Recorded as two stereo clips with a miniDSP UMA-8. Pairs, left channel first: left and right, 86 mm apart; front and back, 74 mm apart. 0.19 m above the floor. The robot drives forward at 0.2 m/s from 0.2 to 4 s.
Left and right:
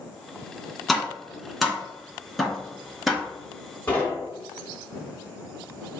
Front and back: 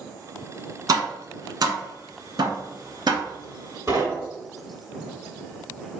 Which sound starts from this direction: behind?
Tapping, at 0.9 s.